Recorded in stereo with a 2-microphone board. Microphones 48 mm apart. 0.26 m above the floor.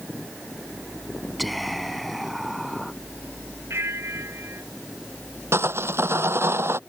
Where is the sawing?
60° right (ahead or behind).